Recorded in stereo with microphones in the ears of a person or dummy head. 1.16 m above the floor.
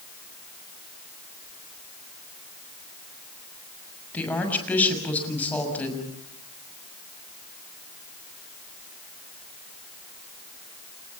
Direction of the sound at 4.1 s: 10° left (ahead or behind).